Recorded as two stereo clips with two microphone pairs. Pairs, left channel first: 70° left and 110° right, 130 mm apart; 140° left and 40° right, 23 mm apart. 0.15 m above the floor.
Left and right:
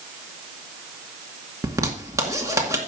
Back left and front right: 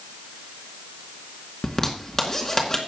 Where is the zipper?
165° right, 2 m.